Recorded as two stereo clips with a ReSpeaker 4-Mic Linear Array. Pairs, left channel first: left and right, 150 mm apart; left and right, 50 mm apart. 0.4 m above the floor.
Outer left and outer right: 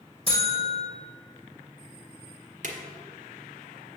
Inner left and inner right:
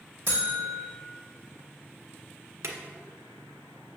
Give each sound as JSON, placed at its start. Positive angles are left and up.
{"t": 0.3, "sound": "a buzzer", "side_deg": -40, "distance_m": 3.0}
{"t": 2.6, "sound": "a drawer", "side_deg": -60, "distance_m": 1.4}